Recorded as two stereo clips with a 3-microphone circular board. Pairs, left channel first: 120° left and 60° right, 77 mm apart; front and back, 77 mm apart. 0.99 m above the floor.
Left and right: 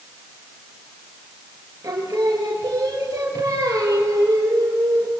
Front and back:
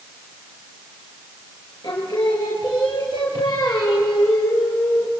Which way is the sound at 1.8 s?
15° right.